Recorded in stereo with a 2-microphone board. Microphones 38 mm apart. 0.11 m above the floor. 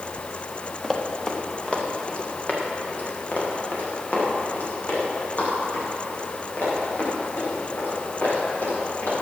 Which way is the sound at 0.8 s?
5° left (ahead or behind).